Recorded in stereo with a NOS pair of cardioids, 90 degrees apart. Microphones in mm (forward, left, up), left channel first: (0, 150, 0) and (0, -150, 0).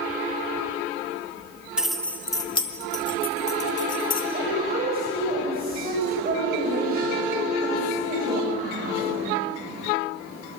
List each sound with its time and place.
1.8 s keys jangling: 5° right, 1.8 m; by 4.2 s 45° left, 2.5 m
4.3 s a woman speaking: 30° right, 8 m